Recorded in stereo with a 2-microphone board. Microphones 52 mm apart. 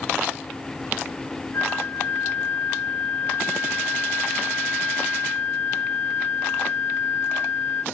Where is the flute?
55° left (ahead or behind), 3 m.